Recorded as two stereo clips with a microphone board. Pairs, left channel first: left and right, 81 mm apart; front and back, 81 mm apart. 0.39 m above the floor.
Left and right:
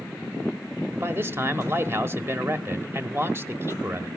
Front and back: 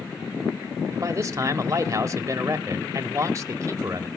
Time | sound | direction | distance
0.9 | a man speaking | 140° right | 1.3 m